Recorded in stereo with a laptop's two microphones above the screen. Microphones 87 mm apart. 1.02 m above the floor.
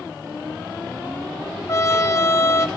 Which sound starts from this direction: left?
A trumpet, at 1.7 s.